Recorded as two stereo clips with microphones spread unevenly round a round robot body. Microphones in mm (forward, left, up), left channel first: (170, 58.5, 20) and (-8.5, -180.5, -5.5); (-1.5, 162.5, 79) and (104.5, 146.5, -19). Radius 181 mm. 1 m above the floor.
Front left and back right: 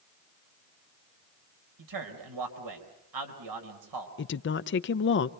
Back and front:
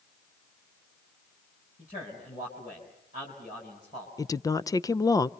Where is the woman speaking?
40° left, 0.5 m.